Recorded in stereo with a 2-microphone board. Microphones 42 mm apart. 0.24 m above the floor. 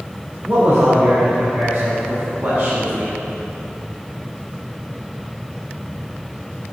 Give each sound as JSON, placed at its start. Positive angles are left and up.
{"t": 0.5, "sound": "a man speaking", "side_deg": -45, "distance_m": 2.0}